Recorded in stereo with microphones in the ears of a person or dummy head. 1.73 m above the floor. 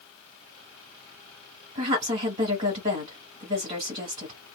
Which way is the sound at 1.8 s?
35° right (ahead or behind).